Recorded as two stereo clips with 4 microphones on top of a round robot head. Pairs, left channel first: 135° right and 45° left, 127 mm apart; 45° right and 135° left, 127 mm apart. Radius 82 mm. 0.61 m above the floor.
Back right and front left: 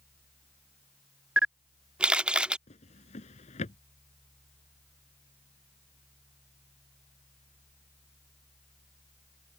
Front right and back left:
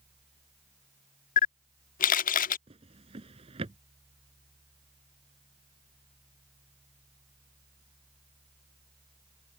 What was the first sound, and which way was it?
A camera shutter, 35° right.